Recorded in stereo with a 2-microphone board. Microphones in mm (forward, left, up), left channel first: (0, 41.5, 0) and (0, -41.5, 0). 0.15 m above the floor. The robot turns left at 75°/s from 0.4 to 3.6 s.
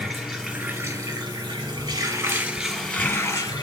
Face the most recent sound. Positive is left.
turn(degrees=115)